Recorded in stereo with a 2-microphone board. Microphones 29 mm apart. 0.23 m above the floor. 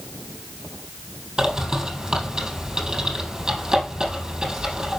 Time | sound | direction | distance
1.4 | a bird | 25° right (ahead or behind) | 3.5 m